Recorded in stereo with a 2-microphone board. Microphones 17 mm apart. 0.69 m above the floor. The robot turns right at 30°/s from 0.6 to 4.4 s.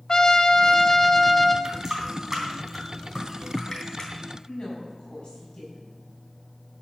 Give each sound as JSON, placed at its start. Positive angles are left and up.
{"t": 0.1, "sound": "a trumpet", "side_deg": 40, "distance_m": 0.9}
{"t": 1.6, "sound": "a running tap", "side_deg": -35, "distance_m": 3.0}
{"t": 4.5, "sound": "a woman speaking", "side_deg": 55, "distance_m": 6.5}